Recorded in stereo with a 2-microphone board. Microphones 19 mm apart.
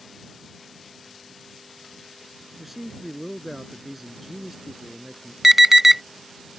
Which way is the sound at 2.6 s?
15° right (ahead or behind).